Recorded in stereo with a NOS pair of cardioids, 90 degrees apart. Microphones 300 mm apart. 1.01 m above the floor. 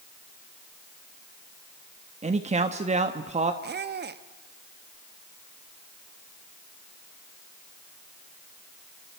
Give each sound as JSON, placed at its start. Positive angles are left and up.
{"t": 2.2, "sound": "a man speaking", "azimuth_deg": -20, "distance_m": 1.2}
{"t": 3.6, "sound": "a squeak", "azimuth_deg": -35, "distance_m": 1.1}